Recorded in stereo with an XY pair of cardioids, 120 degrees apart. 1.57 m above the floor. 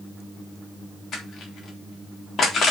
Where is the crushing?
40° left, 3.5 m.